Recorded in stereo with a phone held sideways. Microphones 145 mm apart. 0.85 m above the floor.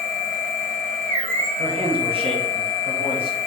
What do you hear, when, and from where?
0.0 s a machine running: 65° right (ahead or behind), 2.5 m
1.6 s a man speaking: 40° right (ahead or behind), 1.2 m